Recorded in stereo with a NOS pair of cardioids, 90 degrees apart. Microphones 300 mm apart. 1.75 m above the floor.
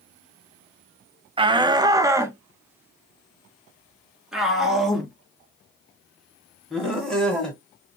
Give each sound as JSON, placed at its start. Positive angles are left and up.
{"t": 1.4, "sound": "a shout", "azimuth_deg": -15, "distance_m": 1.1}